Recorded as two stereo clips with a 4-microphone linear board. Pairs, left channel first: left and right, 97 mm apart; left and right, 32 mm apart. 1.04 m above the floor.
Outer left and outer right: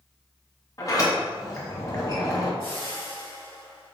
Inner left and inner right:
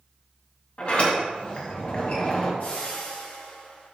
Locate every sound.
0.8 s a sliding door: 40° left (ahead or behind), 1.1 m
2.6 s a whoosh: 65° left (ahead or behind), 1.9 m